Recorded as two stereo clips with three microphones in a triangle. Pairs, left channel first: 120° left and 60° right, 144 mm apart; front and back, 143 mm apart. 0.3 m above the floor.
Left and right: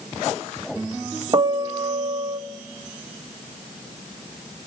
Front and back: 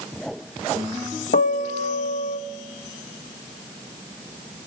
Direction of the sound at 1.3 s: Straight ahead.